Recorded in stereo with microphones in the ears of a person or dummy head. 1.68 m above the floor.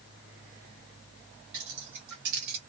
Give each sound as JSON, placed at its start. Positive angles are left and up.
{"t": 1.5, "sound": "keys jangling", "side_deg": -55, "distance_m": 1.1}